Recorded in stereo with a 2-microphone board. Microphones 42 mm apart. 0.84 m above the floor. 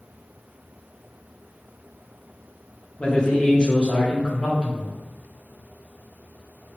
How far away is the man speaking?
About 0.8 m.